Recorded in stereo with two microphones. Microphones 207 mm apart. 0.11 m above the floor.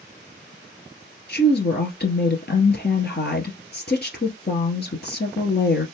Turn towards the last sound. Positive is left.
turn(degrees=55)  # may be behind; listen again after turning